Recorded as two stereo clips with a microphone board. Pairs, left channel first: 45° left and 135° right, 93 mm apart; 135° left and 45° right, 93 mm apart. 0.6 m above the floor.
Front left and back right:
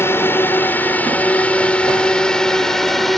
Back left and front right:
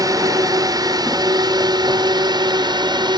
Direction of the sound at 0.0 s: 15° right.